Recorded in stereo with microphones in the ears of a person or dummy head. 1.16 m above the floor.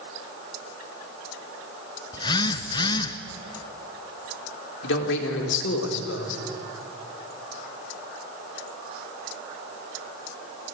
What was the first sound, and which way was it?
A phone buzzing, 25° left (ahead or behind).